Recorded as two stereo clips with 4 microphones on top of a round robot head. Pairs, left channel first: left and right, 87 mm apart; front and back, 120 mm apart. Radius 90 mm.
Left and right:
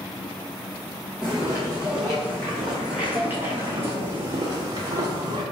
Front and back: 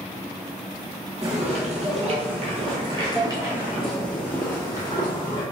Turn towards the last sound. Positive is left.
turn(degrees=-60)